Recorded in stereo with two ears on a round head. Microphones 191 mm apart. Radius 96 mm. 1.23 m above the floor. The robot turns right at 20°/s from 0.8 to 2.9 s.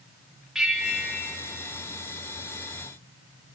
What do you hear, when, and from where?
0.6 s a bell: 5° right (ahead or behind), 2.5 m; by 1.4 s 10° left (ahead or behind), 2.5 m